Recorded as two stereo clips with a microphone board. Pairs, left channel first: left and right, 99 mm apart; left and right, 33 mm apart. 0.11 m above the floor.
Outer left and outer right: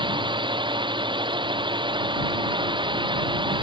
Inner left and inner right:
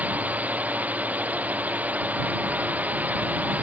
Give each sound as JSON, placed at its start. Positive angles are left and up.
{"t": 0.0, "sound": "a drone", "side_deg": -50}